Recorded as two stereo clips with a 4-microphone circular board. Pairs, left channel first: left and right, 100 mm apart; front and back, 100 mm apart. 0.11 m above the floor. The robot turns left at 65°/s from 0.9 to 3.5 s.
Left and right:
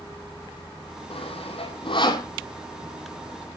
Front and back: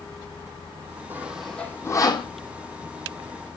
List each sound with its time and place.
1.1 s sawing: 110° left, 1.4 m; by 2.3 s 35° left, 1.4 m